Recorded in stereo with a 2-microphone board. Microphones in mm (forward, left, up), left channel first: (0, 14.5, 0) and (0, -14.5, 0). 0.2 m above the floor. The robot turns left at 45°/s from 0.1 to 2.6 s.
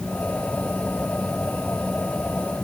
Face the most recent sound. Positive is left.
No sound to turn to.